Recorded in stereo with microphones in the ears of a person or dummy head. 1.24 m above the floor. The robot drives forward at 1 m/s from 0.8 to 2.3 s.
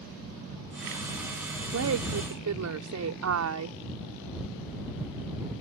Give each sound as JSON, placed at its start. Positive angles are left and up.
{"t": 1.7, "sound": "a woman speaking", "side_deg": -90}